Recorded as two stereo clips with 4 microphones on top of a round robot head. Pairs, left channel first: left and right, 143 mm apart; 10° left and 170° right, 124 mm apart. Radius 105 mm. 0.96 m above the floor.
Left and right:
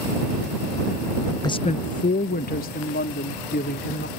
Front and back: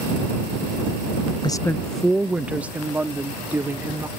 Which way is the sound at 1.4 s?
40° left.